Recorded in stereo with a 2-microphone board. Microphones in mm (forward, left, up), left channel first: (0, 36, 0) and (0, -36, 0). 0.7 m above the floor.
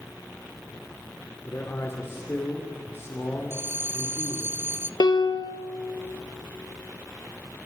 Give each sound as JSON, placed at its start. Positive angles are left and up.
{"t": 1.4, "sound": "a man speaking", "side_deg": 35, "distance_m": 2.5}
{"t": 3.5, "sound": "a bell", "side_deg": -30, "distance_m": 0.8}
{"t": 5.0, "sound": "a piano", "side_deg": 75, "distance_m": 1.1}